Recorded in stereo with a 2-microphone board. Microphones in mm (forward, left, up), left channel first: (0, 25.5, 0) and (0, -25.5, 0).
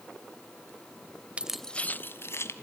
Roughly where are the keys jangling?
Right.